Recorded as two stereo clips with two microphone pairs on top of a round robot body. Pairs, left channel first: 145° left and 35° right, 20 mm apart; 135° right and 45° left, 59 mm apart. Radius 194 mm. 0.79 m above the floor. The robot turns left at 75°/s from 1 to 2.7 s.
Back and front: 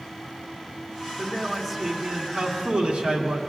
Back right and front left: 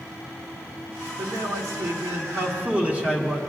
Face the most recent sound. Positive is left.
turn(degrees=-25)